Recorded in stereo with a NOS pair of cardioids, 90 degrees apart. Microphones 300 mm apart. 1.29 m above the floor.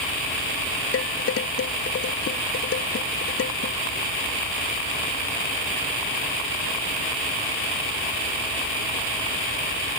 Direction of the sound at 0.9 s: 50° left.